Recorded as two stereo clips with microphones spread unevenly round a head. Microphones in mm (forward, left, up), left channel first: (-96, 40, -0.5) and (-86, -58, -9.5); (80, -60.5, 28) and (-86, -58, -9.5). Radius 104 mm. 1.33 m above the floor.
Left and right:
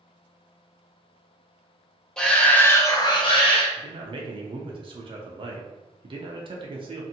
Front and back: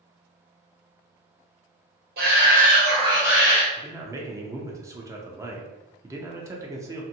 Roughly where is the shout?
Behind.